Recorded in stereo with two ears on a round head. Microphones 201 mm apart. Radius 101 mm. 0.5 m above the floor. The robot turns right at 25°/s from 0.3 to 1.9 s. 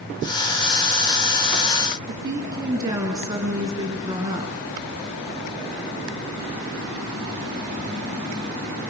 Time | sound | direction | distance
2.1 | a woman speaking | 15° right (ahead or behind) | 6 m